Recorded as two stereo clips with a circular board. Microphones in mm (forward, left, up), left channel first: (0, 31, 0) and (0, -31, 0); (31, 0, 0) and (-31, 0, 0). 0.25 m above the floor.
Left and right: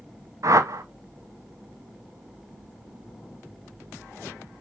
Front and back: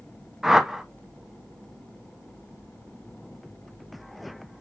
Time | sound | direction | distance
0.4 | a whoosh | 95° right | 0.6 m